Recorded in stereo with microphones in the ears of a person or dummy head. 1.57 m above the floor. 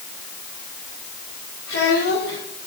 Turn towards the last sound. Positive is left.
turn(degrees=80)